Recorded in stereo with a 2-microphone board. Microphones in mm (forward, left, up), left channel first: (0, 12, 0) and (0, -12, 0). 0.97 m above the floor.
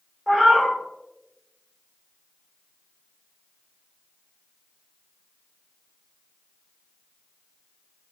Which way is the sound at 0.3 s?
Centre (ahead or behind).